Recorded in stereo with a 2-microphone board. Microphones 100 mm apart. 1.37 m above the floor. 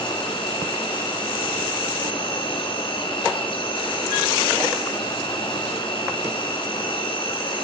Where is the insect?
55° left (ahead or behind), 3 m.